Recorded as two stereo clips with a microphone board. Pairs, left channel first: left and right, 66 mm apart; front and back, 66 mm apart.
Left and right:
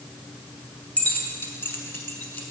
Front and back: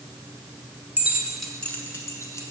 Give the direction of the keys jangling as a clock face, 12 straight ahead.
7 o'clock.